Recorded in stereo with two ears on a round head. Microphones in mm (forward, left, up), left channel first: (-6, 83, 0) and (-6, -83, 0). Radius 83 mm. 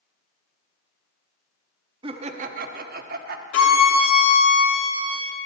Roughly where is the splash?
No splash in this recording.